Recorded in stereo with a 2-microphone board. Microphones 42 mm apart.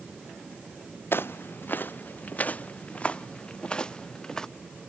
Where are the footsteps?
55° left (ahead or behind); by 4.5 s 15° left (ahead or behind).